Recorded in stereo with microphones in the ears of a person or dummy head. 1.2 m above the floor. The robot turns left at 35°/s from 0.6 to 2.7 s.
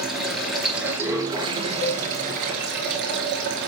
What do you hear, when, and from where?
0.0 s running water: straight ahead, 2 m; by 3.7 s 75° right, 2 m
1.8 s a cowbell: 50° left (ahead or behind), 5 m; by 2.0 s 40° left (ahead or behind), 5 m